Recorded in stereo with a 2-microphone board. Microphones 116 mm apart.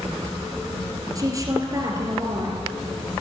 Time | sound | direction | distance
1.1 | a woman speaking | 30° right (ahead or behind) | 3 m